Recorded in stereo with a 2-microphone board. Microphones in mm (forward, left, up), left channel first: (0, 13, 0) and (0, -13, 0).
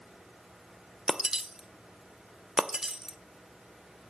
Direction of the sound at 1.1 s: 30° right (ahead or behind).